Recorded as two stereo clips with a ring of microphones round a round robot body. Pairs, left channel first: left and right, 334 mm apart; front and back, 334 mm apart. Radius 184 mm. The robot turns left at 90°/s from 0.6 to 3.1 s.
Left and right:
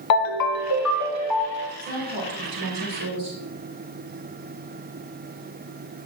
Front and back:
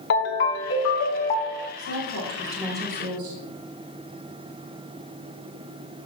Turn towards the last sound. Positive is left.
turn(degrees=-130)